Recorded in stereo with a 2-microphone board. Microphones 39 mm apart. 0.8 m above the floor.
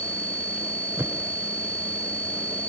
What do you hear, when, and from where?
1.0 s a whoosh: 85° right